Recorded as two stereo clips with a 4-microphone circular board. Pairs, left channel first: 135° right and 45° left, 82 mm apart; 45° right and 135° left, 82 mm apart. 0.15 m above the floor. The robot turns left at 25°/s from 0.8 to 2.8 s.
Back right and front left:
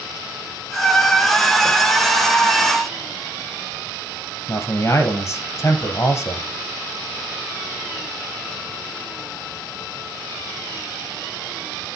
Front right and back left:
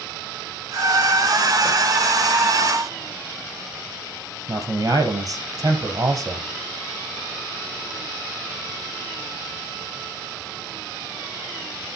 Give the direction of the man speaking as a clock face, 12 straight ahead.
6 o'clock.